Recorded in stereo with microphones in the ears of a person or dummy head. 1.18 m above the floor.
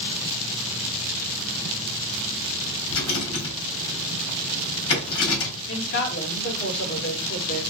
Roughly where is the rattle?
Left.